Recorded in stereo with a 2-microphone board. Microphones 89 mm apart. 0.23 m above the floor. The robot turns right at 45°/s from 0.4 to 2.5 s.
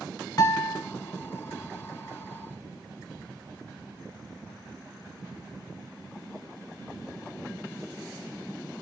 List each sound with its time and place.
0.4 s a guitar: 45° left (ahead or behind), 1.1 m